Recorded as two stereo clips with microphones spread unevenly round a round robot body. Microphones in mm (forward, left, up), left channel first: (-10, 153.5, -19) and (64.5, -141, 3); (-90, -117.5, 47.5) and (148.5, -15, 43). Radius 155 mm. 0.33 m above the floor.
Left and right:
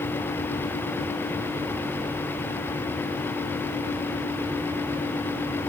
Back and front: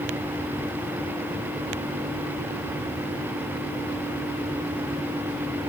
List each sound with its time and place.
Only background noise.